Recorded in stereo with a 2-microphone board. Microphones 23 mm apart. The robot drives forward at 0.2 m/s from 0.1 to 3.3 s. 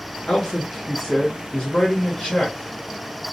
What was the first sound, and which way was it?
A man speaking, 65° left (ahead or behind).